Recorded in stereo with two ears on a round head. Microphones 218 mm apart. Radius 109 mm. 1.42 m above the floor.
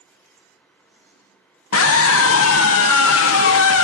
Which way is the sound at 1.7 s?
65° left (ahead or behind).